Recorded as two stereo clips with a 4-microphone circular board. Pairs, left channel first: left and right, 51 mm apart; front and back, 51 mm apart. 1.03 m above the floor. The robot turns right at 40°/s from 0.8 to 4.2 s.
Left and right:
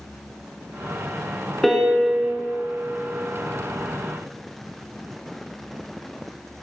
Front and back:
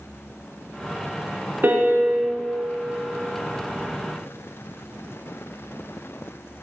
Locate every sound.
1.6 s a piano: 170° left, 0.7 m; by 2.3 s 160° right, 0.7 m